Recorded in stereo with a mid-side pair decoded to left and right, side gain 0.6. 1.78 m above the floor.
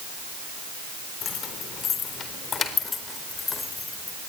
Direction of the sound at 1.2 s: 50° left.